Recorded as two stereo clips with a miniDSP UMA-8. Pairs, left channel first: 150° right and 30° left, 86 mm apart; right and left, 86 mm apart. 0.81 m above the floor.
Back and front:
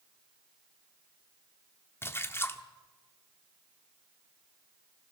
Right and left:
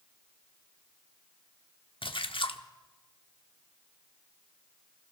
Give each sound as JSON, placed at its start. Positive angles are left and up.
{"t": 2.0, "sound": "a splash", "azimuth_deg": -90, "distance_m": 1.0}